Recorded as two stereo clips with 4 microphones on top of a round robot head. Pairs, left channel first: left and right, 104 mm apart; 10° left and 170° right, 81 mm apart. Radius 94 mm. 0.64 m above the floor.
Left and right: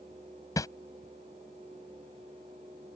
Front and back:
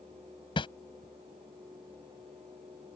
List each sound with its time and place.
0.6 s a whoosh: 30° left